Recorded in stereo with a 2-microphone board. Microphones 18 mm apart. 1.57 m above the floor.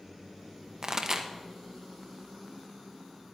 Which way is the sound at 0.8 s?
30° right (ahead or behind).